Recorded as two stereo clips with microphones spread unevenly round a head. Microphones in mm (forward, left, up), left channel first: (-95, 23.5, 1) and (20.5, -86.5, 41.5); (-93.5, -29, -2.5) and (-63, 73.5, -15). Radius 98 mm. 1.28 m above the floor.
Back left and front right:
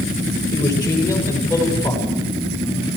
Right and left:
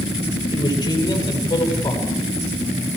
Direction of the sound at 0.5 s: 155° right.